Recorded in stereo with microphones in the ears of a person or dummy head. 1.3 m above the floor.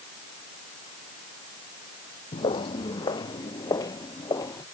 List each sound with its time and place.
2.3 s footsteps: 30° left (ahead or behind); by 4.6 s 20° left (ahead or behind)